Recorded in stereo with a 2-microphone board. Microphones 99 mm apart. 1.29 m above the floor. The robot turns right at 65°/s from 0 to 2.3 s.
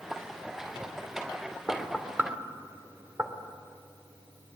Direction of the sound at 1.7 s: 15° left (ahead or behind).